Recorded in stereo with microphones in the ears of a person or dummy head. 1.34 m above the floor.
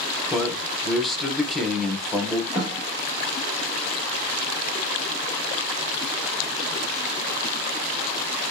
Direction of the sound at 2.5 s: 5° right (ahead or behind).